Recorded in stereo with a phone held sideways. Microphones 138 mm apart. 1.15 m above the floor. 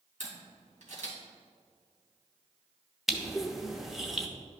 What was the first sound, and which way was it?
A camera shutter, 70° right (ahead or behind).